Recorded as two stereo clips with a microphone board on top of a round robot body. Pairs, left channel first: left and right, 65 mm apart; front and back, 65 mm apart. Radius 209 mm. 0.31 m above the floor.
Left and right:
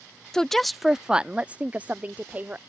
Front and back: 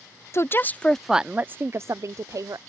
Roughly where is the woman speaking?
Ahead.